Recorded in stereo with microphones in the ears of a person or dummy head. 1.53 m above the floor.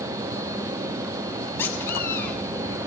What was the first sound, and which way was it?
A squeak, 15° left (ahead or behind).